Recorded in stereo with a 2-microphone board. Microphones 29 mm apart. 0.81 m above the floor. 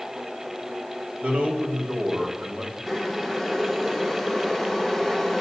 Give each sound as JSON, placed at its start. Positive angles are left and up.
{"t": 1.2, "sound": "a man speaking", "side_deg": -55, "distance_m": 3.0}
{"t": 2.9, "sound": "boiling", "side_deg": 0, "distance_m": 1.4}